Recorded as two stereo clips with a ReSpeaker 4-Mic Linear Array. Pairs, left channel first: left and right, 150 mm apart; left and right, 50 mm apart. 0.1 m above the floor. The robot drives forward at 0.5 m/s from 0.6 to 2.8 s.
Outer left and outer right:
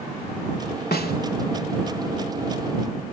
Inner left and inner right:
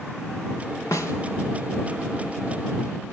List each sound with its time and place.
0.9 s a snare drum: 80° left, 3 m